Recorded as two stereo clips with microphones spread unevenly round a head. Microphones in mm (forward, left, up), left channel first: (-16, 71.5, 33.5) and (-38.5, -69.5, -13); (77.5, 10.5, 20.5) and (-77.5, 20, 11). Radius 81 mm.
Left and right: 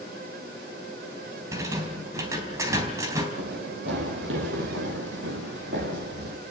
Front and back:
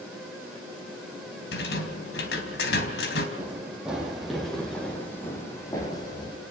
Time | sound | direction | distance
1.5 | a rattle | 20° right | 3.5 m
3.4 | running footsteps | 105° right | 5 m